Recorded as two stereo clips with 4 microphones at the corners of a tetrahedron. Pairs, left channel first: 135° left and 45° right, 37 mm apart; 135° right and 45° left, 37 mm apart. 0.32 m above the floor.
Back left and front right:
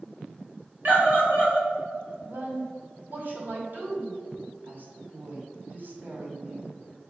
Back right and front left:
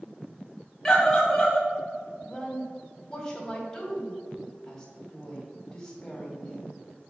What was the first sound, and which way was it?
A scream, 55° right.